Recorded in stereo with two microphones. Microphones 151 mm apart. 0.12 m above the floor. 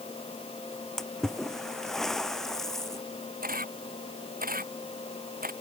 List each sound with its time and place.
1.0 s a splash: 5° left (ahead or behind)
3.4 s a camera shutter: 80° right